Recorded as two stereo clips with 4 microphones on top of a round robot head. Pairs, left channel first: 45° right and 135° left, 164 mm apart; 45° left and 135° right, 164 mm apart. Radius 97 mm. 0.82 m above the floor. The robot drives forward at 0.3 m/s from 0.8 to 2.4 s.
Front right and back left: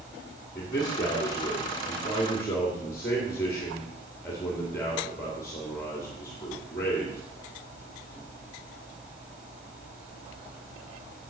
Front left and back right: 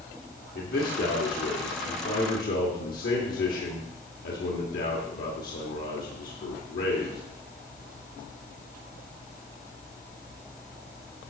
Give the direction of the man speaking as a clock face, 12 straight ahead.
11 o'clock.